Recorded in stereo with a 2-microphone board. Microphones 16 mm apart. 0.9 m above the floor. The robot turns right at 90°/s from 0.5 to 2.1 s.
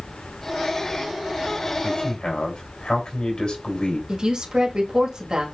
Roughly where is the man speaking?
Left.